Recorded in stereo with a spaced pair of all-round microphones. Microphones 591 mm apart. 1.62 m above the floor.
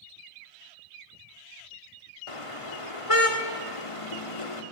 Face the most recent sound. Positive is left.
turn(degrees=60)  # may be behind; listen again after turning